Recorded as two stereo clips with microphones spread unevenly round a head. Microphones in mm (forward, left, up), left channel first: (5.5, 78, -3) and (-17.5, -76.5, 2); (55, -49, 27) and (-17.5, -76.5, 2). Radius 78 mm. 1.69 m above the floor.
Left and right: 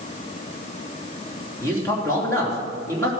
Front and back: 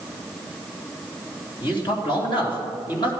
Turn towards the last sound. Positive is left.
turn(degrees=10)